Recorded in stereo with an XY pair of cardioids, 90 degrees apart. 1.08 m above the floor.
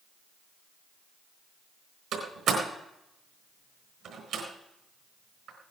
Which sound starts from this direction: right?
A door slam, at 2.1 s.